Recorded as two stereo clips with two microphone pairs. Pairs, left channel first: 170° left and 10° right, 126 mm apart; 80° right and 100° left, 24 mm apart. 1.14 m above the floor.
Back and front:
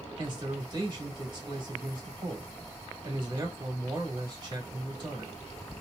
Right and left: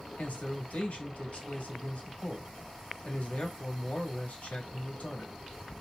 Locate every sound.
0.2 s a man speaking: 65° right, 1.7 m